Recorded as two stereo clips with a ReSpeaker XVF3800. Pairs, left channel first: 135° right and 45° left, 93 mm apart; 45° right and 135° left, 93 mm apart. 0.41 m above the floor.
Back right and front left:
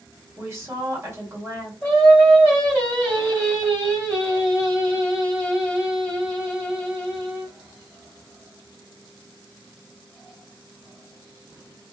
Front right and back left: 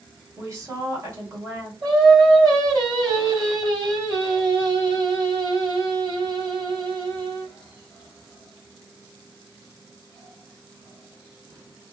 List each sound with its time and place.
0.4 s a woman speaking: 90° left, 1.8 m
1.8 s singing: 160° left, 2 m